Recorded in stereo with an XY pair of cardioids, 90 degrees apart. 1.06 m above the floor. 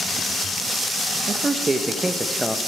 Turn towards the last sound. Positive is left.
turn(degrees=0)